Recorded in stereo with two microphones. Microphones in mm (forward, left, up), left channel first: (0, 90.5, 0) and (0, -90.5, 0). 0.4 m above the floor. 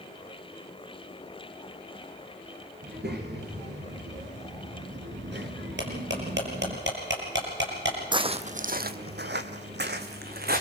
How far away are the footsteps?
About 1.1 m.